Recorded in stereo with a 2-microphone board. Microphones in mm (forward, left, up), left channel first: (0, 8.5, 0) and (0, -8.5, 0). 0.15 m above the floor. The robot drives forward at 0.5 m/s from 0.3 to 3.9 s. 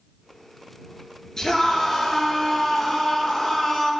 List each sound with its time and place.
1.4 s a scream: 40° left (ahead or behind), 3 m; by 3.9 s 30° left (ahead or behind), 3.5 m